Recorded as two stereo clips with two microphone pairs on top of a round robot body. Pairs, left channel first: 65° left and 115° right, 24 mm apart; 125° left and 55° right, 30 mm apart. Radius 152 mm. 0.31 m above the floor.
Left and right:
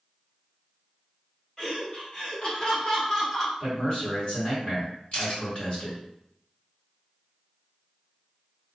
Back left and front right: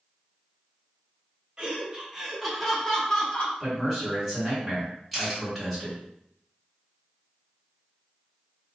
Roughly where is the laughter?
Ahead.